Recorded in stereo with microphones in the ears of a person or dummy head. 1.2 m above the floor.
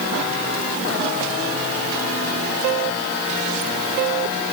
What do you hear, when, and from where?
Only background noise.